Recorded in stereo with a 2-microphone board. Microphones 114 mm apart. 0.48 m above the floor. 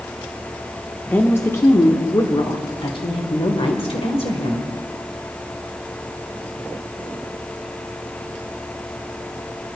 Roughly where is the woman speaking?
Centre.